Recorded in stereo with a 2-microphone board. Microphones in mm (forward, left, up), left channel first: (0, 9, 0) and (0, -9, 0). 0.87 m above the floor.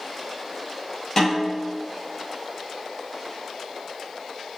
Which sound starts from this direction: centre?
A snare drum, at 1.2 s.